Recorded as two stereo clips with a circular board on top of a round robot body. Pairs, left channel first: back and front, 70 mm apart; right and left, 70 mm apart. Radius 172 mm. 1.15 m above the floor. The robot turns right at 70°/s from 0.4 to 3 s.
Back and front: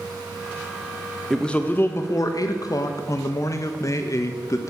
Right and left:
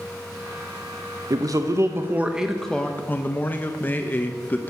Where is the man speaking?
95° left, 0.6 m; by 4.7 s 150° right, 0.6 m.